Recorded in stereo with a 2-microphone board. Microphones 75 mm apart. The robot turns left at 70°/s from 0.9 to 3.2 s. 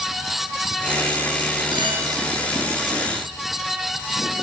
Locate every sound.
1.7 s a clink: 85° right, 5 m; by 2.0 s 65° right (ahead or behind), 5 m